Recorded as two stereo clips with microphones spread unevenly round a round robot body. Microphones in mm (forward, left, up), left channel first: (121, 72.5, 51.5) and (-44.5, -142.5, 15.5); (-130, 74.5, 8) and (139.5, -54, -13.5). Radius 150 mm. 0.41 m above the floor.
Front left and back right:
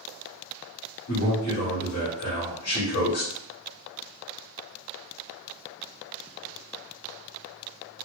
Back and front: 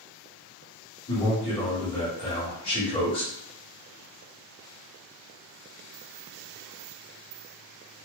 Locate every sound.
1.1 s a man speaking: 80° left, 1.7 m